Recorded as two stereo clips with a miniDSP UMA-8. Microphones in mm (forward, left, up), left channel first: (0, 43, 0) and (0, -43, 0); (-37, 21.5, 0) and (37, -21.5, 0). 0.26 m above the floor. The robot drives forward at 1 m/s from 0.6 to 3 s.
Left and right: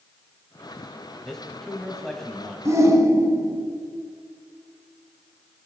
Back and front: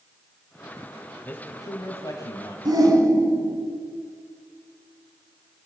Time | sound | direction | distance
1.2 | a man speaking | 165° left | 1.5 m
2.6 | a shout | 45° right | 1.8 m